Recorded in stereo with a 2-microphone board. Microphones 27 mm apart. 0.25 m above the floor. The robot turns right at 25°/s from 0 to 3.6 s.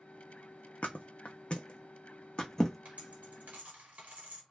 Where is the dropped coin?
50° right (ahead or behind), 1.4 m; by 4.4 s 60° right (ahead or behind), 1.4 m.